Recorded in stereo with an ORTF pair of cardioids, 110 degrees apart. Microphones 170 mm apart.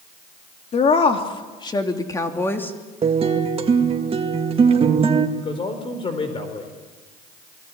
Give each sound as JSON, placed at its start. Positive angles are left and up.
{"t": 0.7, "sound": "a woman speaking", "azimuth_deg": 40, "distance_m": 3.0}
{"t": 3.0, "sound": "a guitar", "azimuth_deg": -40, "distance_m": 2.0}
{"t": 5.4, "sound": "a man speaking", "azimuth_deg": 35, "distance_m": 4.5}